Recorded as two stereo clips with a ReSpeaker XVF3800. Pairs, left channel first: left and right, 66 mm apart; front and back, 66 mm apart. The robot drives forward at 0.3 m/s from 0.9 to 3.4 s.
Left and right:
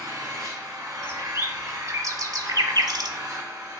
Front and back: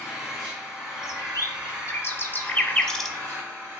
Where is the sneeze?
I don't hear a sneeze.